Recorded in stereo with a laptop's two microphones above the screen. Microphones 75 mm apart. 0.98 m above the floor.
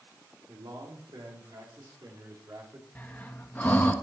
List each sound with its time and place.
0.5 s a man speaking: 75° right (ahead or behind), 3 m; by 2.9 s 45° right (ahead or behind), 3 m
3.0 s breathing: 25° left (ahead or behind), 0.8 m